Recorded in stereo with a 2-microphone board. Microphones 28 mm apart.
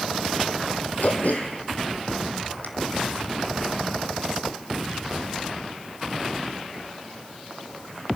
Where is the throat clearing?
80° left, 1.4 m.